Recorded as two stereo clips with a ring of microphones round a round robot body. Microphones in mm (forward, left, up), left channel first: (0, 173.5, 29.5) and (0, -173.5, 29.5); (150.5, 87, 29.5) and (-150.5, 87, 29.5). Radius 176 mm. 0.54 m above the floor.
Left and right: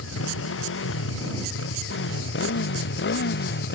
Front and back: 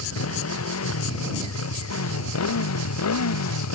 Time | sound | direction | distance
0.0 | a motorcycle | 35° left | ?